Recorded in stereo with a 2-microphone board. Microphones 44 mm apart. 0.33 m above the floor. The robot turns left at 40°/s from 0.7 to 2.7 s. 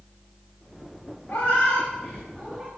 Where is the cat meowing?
50° left (ahead or behind), 3 m; by 2.7 s 5° right (ahead or behind), 3 m.